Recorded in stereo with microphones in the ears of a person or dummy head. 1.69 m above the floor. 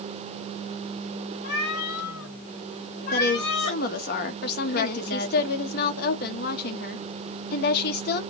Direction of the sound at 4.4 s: 50° left (ahead or behind).